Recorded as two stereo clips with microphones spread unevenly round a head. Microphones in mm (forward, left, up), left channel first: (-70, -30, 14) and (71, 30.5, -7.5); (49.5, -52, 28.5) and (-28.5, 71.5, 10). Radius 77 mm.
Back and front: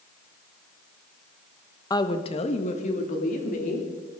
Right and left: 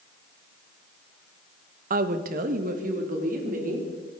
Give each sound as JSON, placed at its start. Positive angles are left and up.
{"t": 1.9, "sound": "a woman speaking", "azimuth_deg": 130, "distance_m": 1.1}